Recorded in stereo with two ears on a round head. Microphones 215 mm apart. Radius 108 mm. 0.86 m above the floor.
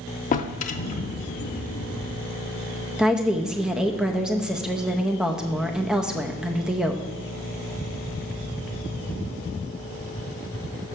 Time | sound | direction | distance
0.3 | a drawer | 35° left (ahead or behind) | 0.6 m
3.0 | a woman speaking | 5° right (ahead or behind) | 0.6 m